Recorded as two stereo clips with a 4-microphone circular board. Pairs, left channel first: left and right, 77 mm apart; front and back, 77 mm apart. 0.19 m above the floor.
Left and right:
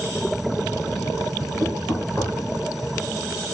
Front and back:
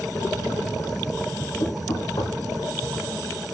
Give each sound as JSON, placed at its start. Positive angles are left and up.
{"t": 1.6, "sound": "knocking", "azimuth_deg": 15, "distance_m": 5.0}